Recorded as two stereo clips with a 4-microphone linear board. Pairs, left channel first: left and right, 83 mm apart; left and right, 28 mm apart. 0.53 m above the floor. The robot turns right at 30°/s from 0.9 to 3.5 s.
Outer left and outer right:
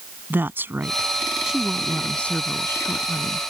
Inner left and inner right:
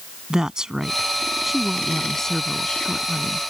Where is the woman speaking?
25° right; by 3.4 s 50° left.